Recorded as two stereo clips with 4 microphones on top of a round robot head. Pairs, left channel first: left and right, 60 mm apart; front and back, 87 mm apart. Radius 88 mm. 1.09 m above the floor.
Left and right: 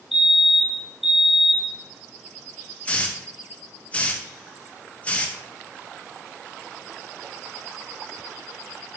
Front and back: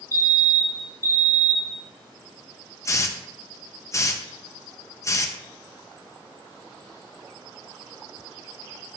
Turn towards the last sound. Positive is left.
turn(degrees=35)